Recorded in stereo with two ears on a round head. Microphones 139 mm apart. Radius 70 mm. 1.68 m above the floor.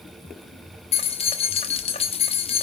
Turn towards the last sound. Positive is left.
turn(degrees=40)  # may be behind; listen again after turning